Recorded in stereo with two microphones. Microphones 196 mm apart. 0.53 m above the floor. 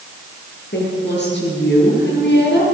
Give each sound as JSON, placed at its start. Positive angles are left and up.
{"t": 0.7, "sound": "a woman speaking", "side_deg": 65, "distance_m": 9.0}